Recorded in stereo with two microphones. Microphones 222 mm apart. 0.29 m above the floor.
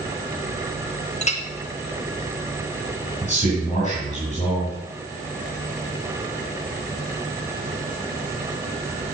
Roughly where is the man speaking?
Left.